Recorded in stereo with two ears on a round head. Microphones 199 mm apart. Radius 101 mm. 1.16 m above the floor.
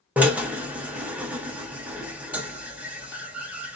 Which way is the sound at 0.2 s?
5° right (ahead or behind).